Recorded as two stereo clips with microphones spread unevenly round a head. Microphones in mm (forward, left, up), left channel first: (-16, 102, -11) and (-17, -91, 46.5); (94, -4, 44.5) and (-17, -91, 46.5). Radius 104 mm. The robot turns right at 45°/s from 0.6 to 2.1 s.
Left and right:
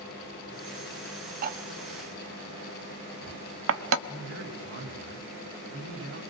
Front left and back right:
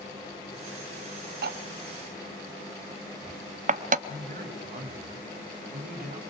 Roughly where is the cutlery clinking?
Behind right.